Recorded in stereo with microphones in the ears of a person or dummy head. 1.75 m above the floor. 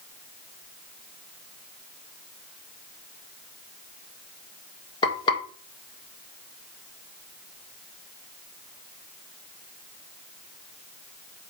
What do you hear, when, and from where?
5.0 s frying: 25° left (ahead or behind), 1.8 m